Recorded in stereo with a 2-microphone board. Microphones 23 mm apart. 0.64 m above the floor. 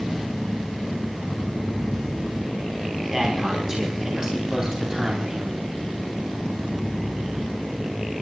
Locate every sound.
3.1 s a man speaking: 20° right (ahead or behind), 4 m; by 5.5 s 30° right (ahead or behind), 3 m